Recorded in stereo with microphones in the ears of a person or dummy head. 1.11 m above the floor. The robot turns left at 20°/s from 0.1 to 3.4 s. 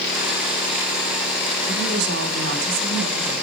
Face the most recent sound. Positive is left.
turn(degrees=-130)